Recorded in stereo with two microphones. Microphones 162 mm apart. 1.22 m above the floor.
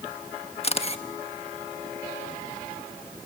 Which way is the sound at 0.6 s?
40° left (ahead or behind).